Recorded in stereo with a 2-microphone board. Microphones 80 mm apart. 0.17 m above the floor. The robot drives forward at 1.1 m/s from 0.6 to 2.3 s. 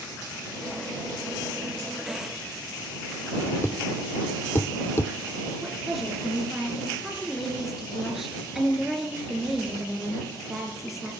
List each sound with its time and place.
3.6 s a thud: 35° left (ahead or behind), 0.9 m
5.6 s a woman speaking: 5° right (ahead or behind), 2.5 m